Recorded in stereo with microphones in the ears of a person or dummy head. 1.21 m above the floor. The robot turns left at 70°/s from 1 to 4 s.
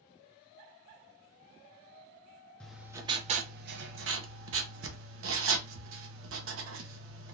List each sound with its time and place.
2.6 s writing: 5° left, 0.7 m; by 7.3 s 90° right, 0.7 m